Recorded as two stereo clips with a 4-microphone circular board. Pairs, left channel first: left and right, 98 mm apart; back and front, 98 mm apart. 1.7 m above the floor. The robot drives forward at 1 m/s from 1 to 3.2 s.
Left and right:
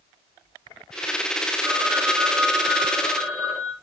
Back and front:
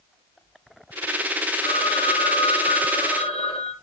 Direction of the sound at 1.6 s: 170° right.